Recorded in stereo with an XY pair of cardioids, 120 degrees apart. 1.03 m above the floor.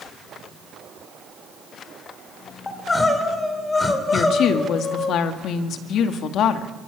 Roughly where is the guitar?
I don't hear a guitar.